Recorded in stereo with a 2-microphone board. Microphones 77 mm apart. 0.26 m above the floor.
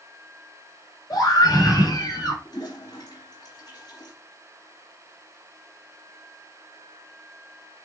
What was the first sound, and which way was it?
A scream, 60° left (ahead or behind).